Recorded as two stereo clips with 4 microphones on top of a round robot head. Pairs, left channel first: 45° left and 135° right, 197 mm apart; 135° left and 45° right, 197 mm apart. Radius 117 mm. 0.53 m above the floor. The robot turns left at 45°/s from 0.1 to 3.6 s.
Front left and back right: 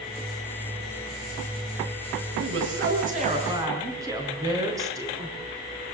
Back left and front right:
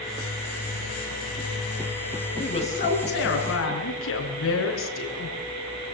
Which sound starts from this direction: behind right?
A woman speaking, at 2.4 s.